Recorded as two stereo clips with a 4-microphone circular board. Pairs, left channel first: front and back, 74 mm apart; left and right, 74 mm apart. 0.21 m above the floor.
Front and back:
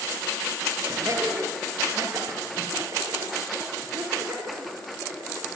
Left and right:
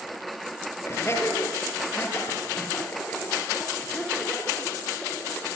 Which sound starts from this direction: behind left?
Laughter, at 0.8 s.